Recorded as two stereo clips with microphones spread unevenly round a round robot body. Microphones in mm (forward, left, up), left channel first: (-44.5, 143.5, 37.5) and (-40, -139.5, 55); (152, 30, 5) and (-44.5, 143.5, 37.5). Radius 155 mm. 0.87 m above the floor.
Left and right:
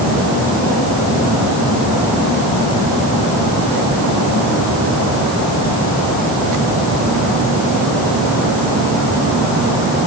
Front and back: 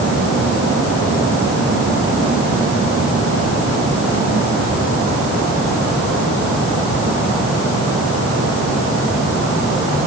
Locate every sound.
Only background noise.